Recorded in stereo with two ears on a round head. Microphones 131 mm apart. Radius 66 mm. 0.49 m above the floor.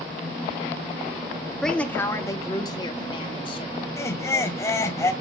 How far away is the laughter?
About 1.1 m.